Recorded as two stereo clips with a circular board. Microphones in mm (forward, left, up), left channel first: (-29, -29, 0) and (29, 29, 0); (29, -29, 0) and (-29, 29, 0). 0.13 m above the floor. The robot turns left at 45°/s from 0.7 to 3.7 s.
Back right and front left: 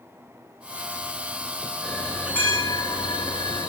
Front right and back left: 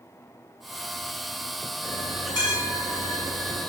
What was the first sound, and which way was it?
A bell, 45° right.